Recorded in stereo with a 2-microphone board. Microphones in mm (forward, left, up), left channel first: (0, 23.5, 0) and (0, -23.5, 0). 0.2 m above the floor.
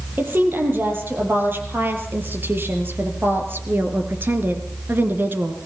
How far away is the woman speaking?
About 5 m.